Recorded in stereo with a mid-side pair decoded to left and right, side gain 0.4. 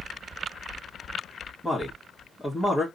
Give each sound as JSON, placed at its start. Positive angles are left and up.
{"t": 1.6, "sound": "a man speaking", "azimuth_deg": 10, "distance_m": 2.0}